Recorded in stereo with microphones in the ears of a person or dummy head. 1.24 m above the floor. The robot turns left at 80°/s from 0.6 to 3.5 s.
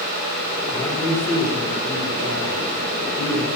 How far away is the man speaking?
About 3 m.